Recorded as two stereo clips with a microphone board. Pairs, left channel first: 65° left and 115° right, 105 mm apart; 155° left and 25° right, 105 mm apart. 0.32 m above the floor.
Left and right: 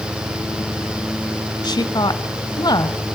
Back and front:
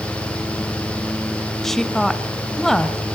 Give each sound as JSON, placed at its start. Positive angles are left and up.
{"t": 1.6, "sound": "a woman speaking", "azimuth_deg": 75, "distance_m": 1.1}